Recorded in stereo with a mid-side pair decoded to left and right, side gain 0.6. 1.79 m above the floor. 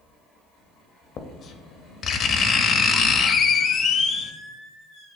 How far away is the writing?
About 0.5 m.